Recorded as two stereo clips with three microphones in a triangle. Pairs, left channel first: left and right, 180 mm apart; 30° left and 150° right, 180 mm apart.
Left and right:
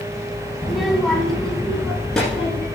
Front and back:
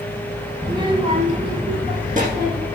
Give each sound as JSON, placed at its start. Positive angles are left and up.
{"t": 0.6, "sound": "a child speaking", "azimuth_deg": -175, "distance_m": 0.8}